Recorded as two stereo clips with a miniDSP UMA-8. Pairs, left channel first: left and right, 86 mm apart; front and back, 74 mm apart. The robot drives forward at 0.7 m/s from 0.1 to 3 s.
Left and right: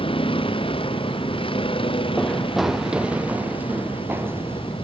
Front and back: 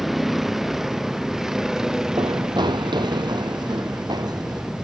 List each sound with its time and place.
0.0 s a vehicle: 95° left; by 4.8 s 100° left
2.2 s running footsteps: 165° left; by 4.8 s 150° right